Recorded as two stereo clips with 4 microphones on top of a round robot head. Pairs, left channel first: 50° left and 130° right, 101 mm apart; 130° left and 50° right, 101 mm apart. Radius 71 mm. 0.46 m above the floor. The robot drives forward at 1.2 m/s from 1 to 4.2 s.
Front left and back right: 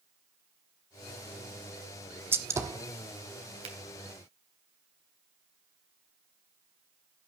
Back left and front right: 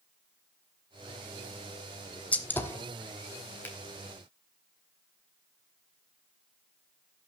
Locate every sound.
2.3 s a gunshot: 170° right, 1.4 m; by 2.9 s 175° right, 1.8 m
3.6 s a finger snap: 160° right, 3 m